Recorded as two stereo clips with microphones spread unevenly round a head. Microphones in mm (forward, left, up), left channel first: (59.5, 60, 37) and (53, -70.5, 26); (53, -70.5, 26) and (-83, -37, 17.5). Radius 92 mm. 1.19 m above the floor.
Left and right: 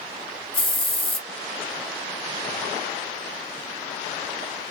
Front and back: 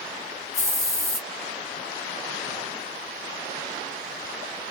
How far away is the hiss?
About 1.1 m.